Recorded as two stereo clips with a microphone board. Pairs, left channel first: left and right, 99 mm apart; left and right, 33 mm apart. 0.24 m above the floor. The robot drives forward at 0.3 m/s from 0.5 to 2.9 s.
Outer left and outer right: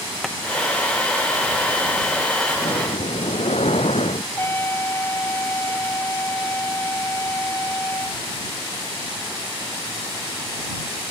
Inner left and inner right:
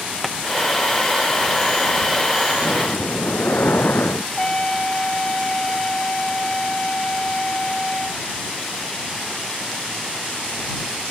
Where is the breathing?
75° left (ahead or behind).